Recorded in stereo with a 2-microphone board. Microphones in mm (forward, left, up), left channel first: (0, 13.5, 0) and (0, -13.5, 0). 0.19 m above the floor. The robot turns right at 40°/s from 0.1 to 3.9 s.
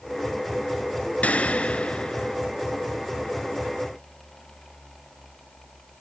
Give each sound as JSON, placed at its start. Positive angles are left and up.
{"t": 1.2, "sound": "a gunshot", "azimuth_deg": 110, "distance_m": 1.2}